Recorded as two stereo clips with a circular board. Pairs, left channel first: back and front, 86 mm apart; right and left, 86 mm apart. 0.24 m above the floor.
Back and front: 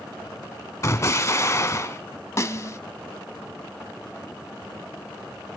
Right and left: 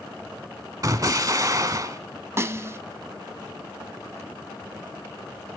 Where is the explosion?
130° left, 1.1 m.